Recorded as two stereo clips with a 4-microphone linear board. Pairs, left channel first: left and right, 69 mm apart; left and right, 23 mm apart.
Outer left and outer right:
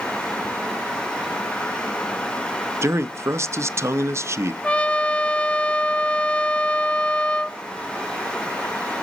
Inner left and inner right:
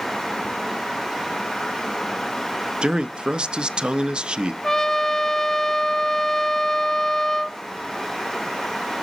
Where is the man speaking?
40° right (ahead or behind), 0.5 m.